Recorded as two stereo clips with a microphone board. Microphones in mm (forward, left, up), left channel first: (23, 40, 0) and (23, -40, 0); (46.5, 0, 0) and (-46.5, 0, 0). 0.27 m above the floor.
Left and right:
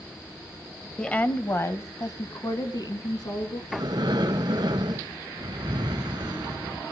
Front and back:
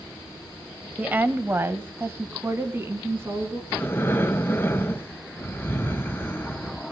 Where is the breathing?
65° right, 0.7 m.